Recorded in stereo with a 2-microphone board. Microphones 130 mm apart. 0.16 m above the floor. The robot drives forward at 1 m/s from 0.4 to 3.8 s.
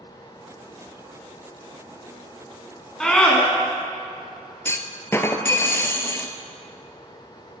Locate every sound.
3.0 s a scream: 5° left (ahead or behind), 1.5 m; by 3.4 s 10° left (ahead or behind), 1.3 m
4.7 s a clunk: 20° left (ahead or behind), 0.7 m